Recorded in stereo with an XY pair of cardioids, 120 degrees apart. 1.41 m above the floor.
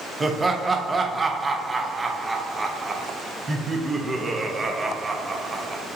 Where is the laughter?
20° right, 0.7 m.